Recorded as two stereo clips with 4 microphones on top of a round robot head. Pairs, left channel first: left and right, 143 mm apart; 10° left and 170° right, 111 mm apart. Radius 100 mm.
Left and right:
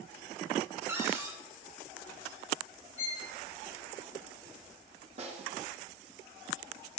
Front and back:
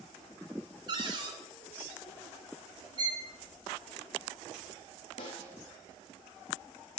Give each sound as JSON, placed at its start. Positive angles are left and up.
{"t": 0.9, "sound": "a cupboard door", "azimuth_deg": -155, "distance_m": 1.3}
{"t": 3.0, "sound": "a violin", "azimuth_deg": 140, "distance_m": 6.5}
{"t": 5.2, "sound": "a snare drum", "azimuth_deg": -45, "distance_m": 4.0}